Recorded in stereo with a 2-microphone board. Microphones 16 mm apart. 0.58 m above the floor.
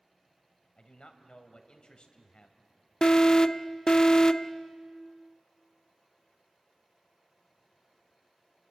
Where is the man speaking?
60° left (ahead or behind), 2.5 m.